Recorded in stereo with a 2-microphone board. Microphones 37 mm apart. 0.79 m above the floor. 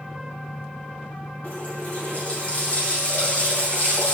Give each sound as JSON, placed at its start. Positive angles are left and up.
{"t": 1.4, "sound": "a running tap", "side_deg": 35, "distance_m": 4.5}